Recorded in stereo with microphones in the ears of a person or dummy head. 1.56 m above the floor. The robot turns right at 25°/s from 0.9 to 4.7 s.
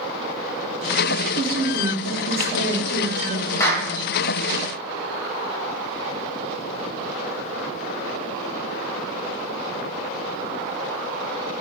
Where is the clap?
20° left (ahead or behind), 1.0 m; by 3.9 s 10° left (ahead or behind), 1.0 m.